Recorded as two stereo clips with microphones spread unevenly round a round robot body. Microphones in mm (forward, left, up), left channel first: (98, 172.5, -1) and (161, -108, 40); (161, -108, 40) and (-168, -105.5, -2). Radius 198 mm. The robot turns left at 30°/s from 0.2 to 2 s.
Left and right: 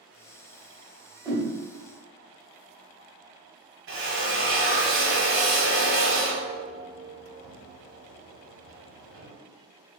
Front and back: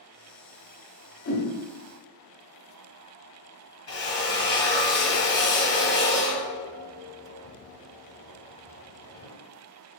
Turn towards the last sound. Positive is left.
turn(degrees=-35)